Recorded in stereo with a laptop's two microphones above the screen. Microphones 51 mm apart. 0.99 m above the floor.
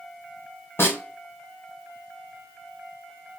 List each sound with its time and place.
0.8 s a snare drum: 50° left (ahead or behind), 1.9 m